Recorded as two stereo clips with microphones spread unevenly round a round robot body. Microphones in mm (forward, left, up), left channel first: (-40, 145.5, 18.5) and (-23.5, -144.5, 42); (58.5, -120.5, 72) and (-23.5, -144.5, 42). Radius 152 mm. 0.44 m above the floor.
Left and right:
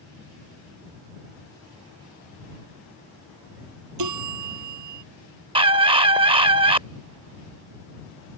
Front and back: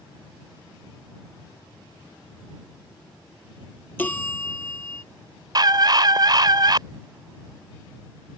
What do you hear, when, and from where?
4.0 s a bell: 55° right
5.5 s a scream: 160° right